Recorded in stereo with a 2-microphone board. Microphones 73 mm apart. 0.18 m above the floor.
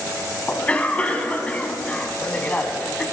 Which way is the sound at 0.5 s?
20° left (ahead or behind).